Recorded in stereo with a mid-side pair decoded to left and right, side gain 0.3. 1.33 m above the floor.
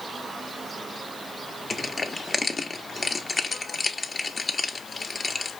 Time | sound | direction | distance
1.7 | crushing | 40° left | 0.9 m